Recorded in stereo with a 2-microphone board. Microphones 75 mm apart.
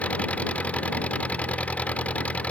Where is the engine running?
20° left (ahead or behind).